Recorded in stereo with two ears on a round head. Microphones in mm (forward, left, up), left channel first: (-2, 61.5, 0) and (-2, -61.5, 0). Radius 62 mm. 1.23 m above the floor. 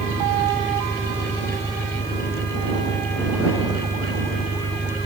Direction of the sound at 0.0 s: 25° left (ahead or behind).